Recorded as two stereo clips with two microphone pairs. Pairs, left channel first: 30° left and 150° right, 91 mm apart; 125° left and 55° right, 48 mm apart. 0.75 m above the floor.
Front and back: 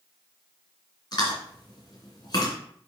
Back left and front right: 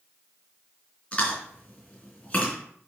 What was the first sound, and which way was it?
Chewing, 65° left.